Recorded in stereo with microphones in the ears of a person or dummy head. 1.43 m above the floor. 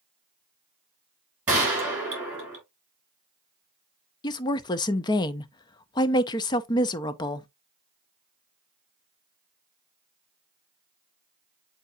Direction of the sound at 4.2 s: 20° left (ahead or behind).